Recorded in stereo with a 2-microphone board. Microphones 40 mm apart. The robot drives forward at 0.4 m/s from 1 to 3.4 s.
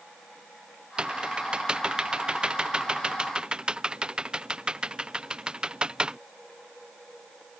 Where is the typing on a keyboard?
20° right (ahead or behind).